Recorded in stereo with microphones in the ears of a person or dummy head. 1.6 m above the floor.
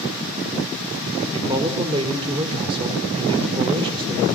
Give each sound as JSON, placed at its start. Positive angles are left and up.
{"t": 1.3, "sound": "a man speaking", "side_deg": -25, "distance_m": 4.0}